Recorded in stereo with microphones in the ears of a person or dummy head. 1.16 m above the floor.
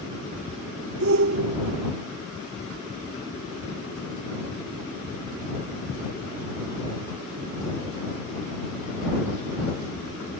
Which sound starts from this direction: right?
A shout, at 1.0 s.